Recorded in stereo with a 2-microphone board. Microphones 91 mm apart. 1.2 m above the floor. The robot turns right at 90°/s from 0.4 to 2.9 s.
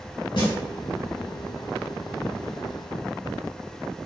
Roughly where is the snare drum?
Left.